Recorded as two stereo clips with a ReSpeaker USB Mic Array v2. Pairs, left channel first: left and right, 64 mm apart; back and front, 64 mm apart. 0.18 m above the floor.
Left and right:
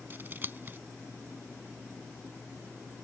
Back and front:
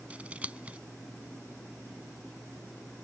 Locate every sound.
0.1 s scissors: 55° right